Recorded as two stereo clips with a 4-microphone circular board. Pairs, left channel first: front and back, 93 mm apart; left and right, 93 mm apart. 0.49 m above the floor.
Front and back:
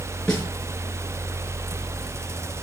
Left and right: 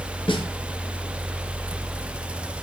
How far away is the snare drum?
About 4.5 m.